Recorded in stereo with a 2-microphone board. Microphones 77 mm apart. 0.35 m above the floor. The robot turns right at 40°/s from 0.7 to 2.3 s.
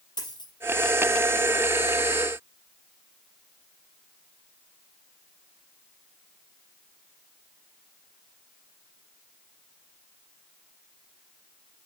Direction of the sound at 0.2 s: 75° left (ahead or behind).